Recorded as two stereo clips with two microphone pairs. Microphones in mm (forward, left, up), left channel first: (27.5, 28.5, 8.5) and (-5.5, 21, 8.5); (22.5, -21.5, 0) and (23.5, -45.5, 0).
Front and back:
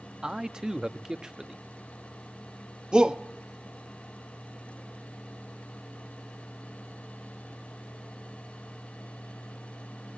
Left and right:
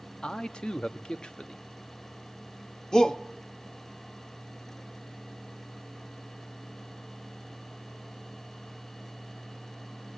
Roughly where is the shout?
Behind left.